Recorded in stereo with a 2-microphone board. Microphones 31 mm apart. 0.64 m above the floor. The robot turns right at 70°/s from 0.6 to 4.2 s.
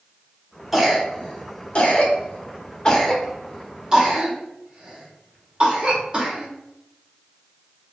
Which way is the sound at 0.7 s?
5° right (ahead or behind).